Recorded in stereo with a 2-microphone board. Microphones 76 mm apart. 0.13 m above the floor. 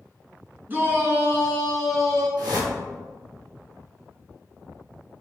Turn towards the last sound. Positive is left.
turn(degrees=-60)  # may be behind; listen again after turning